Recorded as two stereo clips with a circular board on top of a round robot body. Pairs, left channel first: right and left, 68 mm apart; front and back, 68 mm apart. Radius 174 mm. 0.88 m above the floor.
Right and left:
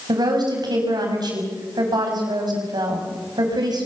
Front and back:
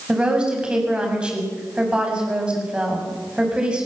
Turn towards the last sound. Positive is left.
turn(degrees=105)